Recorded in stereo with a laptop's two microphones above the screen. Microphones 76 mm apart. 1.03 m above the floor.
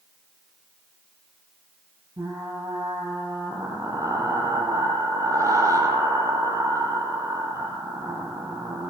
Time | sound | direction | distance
2.2 | frying | 40° right (ahead or behind) | 8 m